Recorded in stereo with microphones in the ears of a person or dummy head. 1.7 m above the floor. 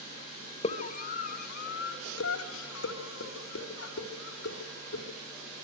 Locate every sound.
0.6 s a scream: 35° left (ahead or behind), 2.5 m; by 5.0 s 75° left (ahead or behind), 5.5 m